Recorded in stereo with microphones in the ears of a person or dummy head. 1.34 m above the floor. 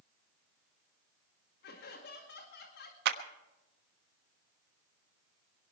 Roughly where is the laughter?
Left.